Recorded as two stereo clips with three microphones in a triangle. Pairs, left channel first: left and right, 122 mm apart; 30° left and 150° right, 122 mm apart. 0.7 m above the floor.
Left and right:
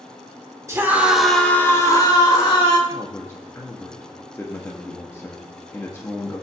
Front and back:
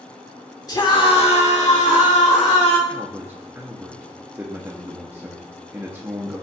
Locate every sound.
0.7 s a scream: 25° right, 1.8 m; by 2.8 s 50° left, 3 m
2.9 s a man speaking: 150° left, 0.8 m